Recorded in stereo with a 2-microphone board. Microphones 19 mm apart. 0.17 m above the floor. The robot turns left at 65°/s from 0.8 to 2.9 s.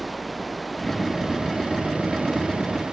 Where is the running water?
5° right; by 2.9 s 140° right.